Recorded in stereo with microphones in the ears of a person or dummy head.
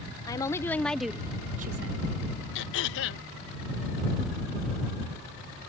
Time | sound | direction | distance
0.2 | a woman speaking | 25° left (ahead or behind) | ?
2.5 | throat clearing | 70° left (ahead or behind) | ?